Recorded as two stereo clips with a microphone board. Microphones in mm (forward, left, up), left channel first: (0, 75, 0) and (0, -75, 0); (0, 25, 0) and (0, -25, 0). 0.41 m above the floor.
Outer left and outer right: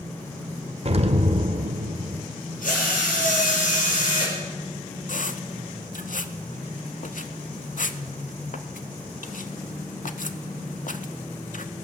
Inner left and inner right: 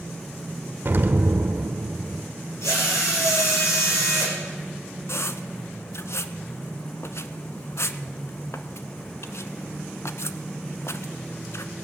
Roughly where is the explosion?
Right.